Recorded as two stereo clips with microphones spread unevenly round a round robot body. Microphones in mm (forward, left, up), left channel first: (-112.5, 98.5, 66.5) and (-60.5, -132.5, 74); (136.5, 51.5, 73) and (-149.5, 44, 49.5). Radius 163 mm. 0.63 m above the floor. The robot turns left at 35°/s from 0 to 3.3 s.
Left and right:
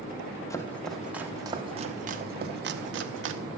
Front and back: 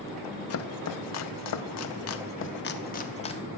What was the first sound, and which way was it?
Chopping, 30° left.